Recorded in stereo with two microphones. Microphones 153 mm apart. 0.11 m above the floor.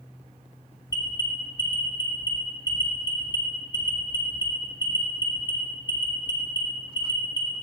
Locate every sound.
0.9 s an alarm: 25° left (ahead or behind), 1.3 m